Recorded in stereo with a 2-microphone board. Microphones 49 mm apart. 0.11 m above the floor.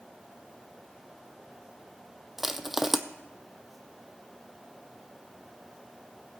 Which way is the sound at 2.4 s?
5° right (ahead or behind).